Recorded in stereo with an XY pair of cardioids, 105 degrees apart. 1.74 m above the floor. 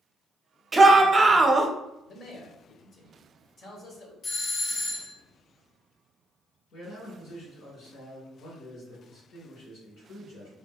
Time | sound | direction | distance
0.7 | a shout | 20° right | 0.8 m
2.1 | a man speaking | 55° left | 1.3 m
4.2 | a doorbell | 65° left | 0.7 m
6.7 | a man speaking | 65° left | 2.0 m